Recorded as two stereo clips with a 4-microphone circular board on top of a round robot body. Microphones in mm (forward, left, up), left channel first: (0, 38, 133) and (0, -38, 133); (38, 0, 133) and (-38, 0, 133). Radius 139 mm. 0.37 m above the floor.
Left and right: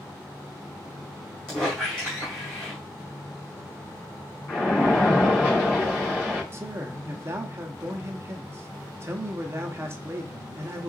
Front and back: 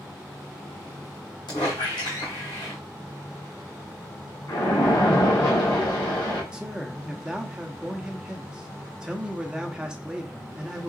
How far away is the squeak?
About 2.5 m.